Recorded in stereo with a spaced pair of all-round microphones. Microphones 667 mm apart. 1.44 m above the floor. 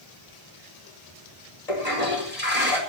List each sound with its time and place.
1.7 s a toilet flushing: 70° left (ahead or behind), 5 m